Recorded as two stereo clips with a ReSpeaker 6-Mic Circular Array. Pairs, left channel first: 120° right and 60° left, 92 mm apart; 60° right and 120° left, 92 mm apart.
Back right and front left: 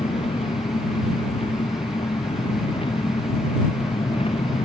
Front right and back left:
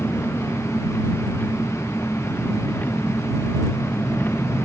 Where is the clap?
No clap in this recording.